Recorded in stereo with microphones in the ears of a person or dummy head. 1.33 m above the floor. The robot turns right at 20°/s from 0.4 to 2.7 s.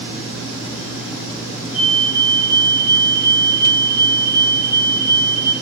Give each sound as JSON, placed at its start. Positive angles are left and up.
{"t": 1.7, "sound": "a fire alarm", "side_deg": 25, "distance_m": 5.0}